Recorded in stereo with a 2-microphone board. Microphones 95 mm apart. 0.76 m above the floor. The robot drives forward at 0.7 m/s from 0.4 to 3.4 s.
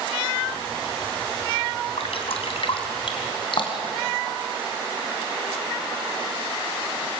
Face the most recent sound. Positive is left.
turn(degrees=55)  # may be behind; listen again after turning